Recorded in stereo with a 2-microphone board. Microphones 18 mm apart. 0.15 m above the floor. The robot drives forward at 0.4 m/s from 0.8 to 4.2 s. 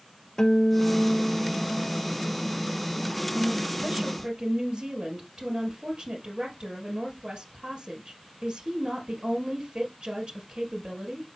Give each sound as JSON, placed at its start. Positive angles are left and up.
{"t": 0.4, "sound": "a guitar", "side_deg": 40, "distance_m": 1.0}
{"t": 3.4, "sound": "a woman speaking", "side_deg": -55, "distance_m": 2.5}